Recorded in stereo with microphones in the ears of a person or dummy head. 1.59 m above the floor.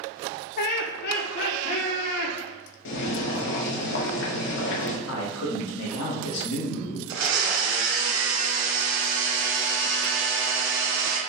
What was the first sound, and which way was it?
Laughter, 45° left (ahead or behind).